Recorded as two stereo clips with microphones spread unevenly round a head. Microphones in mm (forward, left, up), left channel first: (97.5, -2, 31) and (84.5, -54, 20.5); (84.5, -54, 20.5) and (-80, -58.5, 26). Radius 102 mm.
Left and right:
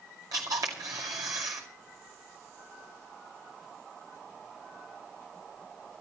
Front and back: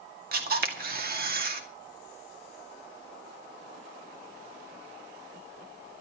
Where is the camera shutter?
150° right, 2.5 m.